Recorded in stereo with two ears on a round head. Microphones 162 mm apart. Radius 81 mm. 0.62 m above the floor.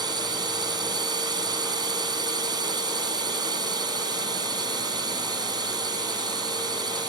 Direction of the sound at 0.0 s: 25° right (ahead or behind).